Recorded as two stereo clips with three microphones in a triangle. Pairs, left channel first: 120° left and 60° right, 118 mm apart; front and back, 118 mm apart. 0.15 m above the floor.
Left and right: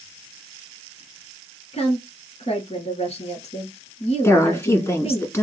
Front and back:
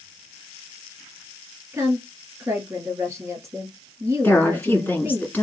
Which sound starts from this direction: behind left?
A woman speaking, at 1.7 s.